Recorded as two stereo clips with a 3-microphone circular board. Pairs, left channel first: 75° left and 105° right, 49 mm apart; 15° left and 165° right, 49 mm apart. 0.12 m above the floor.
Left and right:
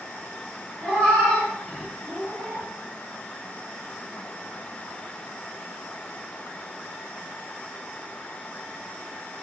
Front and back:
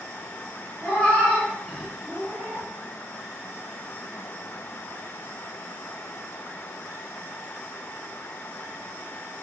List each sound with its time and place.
0.8 s a cat meowing: 10° left, 0.9 m; by 2.7 s 145° left, 1.0 m